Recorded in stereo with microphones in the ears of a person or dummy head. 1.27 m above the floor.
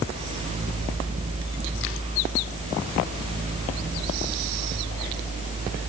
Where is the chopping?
No chopping in this recording.